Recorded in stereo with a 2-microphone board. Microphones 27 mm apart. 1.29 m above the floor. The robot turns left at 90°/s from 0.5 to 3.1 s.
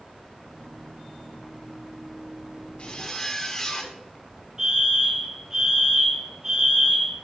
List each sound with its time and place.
2.8 s a zipper: 45° left (ahead or behind), 1.4 m; by 4.0 s 20° left (ahead or behind), 1.4 m
4.6 s a fire alarm: 30° right (ahead or behind), 3.5 m